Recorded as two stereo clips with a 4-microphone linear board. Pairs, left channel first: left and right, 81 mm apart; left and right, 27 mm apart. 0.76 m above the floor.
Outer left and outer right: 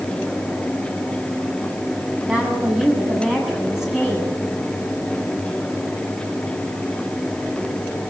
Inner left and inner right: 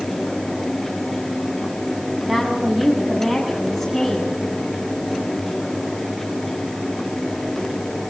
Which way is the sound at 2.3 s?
10° right (ahead or behind).